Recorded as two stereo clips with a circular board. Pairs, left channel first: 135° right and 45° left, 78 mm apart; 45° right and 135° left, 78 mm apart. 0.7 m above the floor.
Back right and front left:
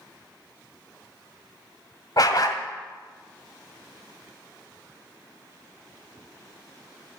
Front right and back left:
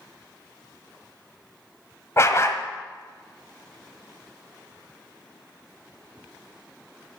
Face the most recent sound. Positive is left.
turn(degrees=-100)